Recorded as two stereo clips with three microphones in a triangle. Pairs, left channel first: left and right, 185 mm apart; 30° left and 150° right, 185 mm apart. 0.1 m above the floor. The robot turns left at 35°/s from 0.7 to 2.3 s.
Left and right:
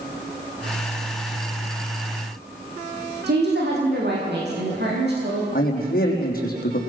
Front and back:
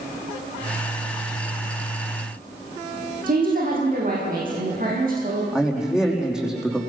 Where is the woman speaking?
110° right, 5.5 m.